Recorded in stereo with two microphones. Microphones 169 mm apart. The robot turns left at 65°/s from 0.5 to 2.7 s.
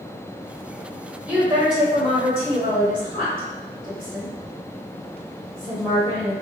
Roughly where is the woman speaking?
Centre.